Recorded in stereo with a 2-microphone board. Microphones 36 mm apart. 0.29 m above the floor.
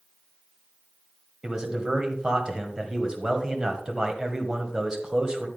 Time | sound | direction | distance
1.4 | a man speaking | 20° right (ahead or behind) | 1.6 m